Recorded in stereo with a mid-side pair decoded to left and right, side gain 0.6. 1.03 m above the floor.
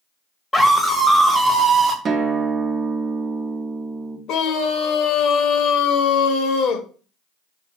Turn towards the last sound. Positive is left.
turn(degrees=65)